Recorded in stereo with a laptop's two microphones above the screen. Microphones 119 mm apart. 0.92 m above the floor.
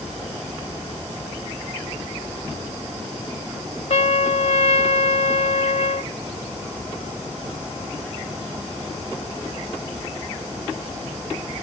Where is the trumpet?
70° left (ahead or behind).